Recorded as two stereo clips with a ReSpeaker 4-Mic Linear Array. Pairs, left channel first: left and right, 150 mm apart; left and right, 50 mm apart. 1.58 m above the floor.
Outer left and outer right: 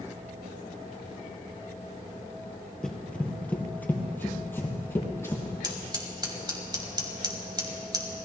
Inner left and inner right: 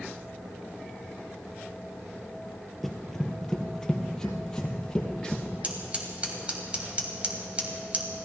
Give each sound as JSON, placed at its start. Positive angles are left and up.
{"t": 2.8, "sound": "running footsteps", "side_deg": 5, "distance_m": 1.7}
{"t": 5.6, "sound": "scissors", "side_deg": -30, "distance_m": 2.0}